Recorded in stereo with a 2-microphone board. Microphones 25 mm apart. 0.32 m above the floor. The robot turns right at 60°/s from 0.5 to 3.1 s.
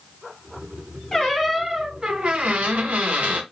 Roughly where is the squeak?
Behind.